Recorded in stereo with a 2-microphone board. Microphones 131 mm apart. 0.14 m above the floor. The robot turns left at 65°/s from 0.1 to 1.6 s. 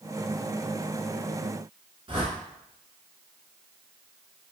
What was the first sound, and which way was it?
A whoosh, 45° right (ahead or behind).